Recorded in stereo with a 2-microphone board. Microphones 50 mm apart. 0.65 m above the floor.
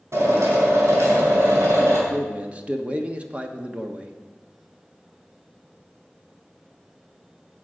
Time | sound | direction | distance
0.1 | a drill | 70° right (ahead or behind) | 4.5 m
2.1 | a man speaking | 25° right (ahead or behind) | 1.2 m